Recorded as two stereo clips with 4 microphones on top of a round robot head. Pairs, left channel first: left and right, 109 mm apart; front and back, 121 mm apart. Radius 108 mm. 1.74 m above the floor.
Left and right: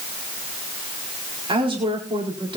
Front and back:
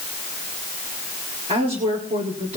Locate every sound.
1.5 s a woman speaking: 130° right, 4 m